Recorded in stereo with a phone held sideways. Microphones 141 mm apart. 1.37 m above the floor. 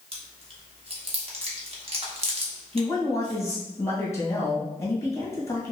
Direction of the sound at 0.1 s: 45° right (ahead or behind).